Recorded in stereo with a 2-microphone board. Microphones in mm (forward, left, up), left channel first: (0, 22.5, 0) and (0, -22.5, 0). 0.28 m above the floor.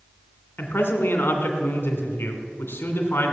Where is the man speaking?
60° left (ahead or behind), 2 m.